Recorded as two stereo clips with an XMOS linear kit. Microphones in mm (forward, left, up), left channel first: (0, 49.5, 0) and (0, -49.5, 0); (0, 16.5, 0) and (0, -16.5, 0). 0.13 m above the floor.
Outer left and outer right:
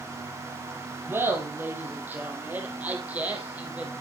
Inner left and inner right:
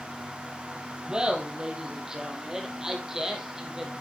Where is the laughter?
25° right (ahead or behind), 3 m; by 3.9 s 15° right (ahead or behind), 4.5 m.